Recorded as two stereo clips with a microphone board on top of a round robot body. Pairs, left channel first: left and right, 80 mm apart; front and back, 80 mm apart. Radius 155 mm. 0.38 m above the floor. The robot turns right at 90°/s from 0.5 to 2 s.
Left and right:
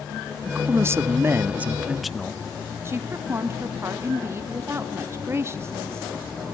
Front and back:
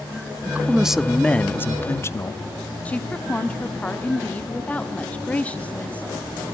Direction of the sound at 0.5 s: 135° right.